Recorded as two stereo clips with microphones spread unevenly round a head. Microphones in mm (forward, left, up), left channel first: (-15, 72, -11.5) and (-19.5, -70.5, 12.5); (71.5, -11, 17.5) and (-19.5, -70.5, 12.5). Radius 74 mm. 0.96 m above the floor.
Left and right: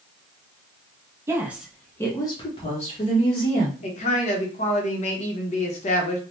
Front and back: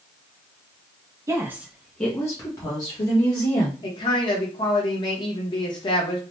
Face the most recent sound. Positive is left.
turn(degrees=80)